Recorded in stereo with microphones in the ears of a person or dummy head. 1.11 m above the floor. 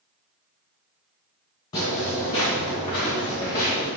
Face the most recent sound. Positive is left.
turn(degrees=15)  # may be behind; listen again after turning